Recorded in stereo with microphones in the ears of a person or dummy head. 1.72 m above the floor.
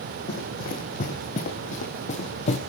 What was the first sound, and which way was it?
Running footsteps, 50° left (ahead or behind).